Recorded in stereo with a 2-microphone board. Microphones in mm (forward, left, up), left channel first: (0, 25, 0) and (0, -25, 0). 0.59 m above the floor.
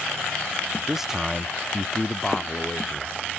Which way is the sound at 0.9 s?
10° right (ahead or behind).